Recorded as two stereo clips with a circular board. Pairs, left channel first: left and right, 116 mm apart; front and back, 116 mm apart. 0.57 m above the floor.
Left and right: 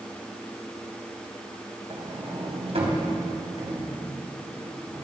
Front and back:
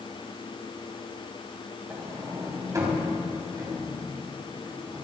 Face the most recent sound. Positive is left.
turn(degrees=-120)